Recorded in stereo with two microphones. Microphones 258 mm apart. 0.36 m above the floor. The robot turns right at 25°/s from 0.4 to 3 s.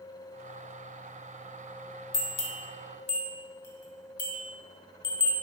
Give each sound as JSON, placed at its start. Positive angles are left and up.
{"t": 2.1, "sound": "a bell", "side_deg": 50, "distance_m": 0.8}